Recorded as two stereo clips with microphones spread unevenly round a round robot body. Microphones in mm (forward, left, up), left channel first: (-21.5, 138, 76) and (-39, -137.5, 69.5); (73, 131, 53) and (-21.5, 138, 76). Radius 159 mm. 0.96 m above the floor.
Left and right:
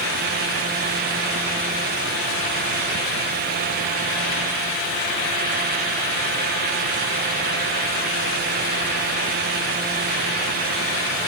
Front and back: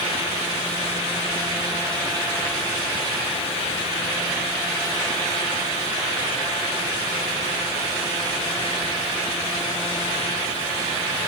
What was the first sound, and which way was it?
Only background noise.